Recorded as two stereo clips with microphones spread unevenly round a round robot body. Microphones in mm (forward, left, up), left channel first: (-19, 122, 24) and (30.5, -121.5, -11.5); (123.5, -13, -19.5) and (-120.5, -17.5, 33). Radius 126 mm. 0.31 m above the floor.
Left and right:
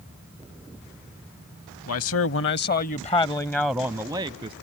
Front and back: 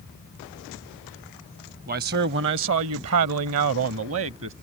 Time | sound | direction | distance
1.9 | a man speaking | 125° left | ?